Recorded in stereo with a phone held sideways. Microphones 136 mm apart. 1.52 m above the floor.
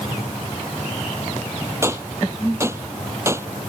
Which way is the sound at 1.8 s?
20° right (ahead or behind).